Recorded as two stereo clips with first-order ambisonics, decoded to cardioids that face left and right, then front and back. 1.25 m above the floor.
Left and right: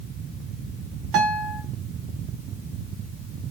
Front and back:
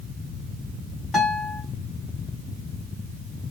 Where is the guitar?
80° right, 1.6 m.